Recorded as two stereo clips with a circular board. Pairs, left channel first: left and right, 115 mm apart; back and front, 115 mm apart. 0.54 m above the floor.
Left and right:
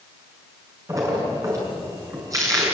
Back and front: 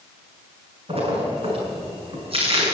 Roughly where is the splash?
Ahead right.